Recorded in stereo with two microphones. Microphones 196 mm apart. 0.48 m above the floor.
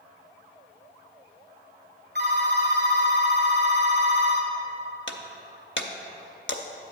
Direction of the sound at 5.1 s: 75° left (ahead or behind).